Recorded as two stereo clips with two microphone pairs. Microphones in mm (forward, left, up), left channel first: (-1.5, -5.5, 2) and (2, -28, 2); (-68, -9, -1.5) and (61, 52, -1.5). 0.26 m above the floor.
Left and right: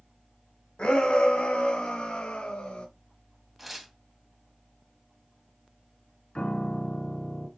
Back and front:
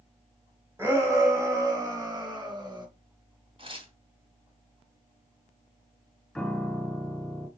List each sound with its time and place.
0.8 s a shout: 95° left, 2 m; by 2.9 s 80° left, 3 m
3.6 s tearing paper: straight ahead, 2 m
6.3 s a piano: 120° left, 1.5 m